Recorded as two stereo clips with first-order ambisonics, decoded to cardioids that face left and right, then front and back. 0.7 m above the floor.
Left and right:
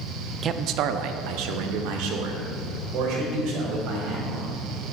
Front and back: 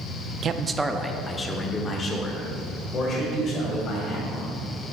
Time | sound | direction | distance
0.4 | a man speaking | 140° right | 0.5 m